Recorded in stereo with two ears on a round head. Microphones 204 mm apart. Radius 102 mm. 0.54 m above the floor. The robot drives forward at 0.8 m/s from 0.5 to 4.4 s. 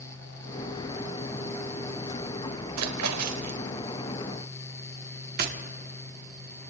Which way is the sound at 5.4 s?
40° right (ahead or behind).